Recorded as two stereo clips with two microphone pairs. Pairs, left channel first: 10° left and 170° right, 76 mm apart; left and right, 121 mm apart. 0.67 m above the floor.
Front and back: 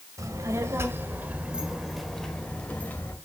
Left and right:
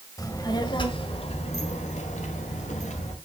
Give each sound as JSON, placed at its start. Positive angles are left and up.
{"t": 0.2, "sound": "a child speaking", "azimuth_deg": 150, "distance_m": 2.0}